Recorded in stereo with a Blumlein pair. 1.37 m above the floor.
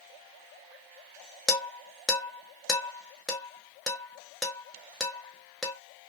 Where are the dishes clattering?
5° left, 1.0 m.